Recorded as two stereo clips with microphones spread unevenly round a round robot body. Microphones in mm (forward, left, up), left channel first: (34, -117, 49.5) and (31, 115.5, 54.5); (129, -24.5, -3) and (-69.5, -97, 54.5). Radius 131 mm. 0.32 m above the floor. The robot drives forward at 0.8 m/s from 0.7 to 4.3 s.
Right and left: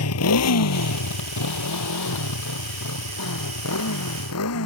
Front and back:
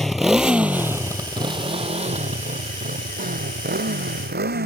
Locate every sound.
0.0 s a motorcycle: 70° right; by 4.7 s 120° right